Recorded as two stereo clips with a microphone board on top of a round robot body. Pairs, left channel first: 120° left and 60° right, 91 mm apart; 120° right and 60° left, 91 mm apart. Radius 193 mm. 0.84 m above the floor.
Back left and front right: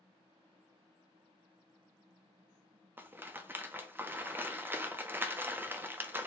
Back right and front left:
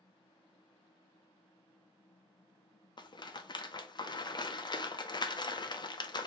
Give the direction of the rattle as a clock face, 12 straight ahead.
4 o'clock.